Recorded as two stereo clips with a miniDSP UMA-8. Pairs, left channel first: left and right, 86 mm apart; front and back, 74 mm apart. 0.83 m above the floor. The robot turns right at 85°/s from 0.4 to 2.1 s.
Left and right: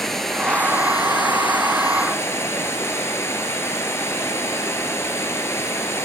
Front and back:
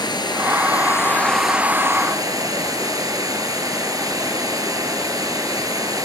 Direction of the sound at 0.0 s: 5° left.